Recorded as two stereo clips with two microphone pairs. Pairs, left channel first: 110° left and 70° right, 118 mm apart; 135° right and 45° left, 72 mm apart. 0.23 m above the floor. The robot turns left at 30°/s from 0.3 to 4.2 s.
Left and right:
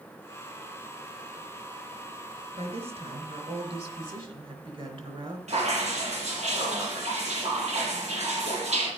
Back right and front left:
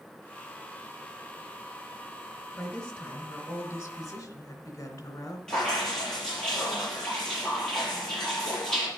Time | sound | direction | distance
2.5 | a woman speaking | 50° right | 2.5 m
5.5 | dripping | 55° right | 6.5 m